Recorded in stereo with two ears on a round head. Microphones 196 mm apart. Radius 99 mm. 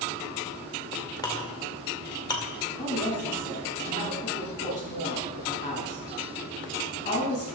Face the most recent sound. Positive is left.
turn(degrees=35)  # may be behind; listen again after turning